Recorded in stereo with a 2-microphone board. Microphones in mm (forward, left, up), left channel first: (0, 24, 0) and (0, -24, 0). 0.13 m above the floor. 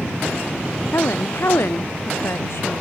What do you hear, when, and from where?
0.9 s a woman speaking: 65° left (ahead or behind)